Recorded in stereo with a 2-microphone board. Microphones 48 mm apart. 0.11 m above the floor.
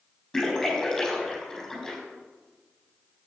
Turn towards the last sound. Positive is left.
turn(degrees=5)  # may be behind; listen again after turning